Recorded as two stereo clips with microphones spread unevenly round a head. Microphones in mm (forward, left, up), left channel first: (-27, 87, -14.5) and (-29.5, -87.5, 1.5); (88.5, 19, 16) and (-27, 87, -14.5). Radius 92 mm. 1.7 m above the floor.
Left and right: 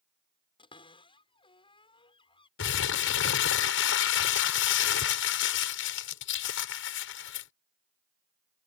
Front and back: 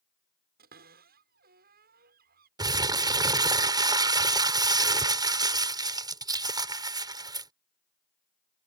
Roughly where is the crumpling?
Left.